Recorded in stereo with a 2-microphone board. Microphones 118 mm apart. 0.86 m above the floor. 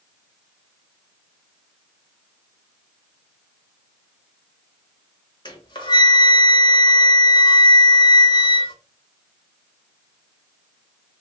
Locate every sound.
5.5 s a flute: 35° left (ahead or behind), 1.0 m